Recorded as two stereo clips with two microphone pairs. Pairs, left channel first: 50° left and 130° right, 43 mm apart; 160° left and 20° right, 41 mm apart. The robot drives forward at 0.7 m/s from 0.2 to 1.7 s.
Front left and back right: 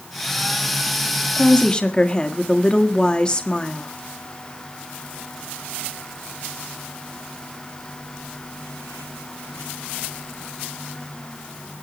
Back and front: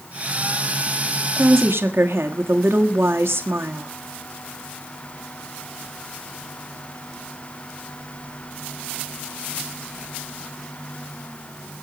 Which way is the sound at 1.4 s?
15° right.